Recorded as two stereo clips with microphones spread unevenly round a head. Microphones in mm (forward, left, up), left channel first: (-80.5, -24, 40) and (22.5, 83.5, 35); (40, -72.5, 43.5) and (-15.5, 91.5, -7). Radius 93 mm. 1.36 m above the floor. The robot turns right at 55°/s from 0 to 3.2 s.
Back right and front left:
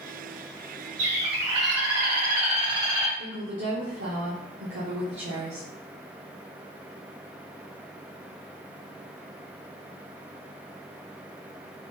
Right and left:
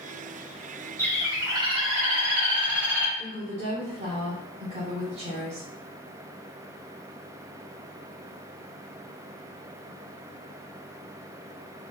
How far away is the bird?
About 1.5 m.